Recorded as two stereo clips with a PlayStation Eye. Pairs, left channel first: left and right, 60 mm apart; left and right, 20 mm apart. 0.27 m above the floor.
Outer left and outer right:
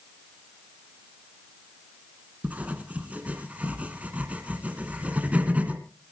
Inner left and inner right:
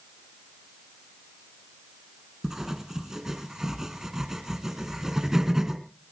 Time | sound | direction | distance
2.4 | writing | 25° right (ahead or behind) | 1.9 m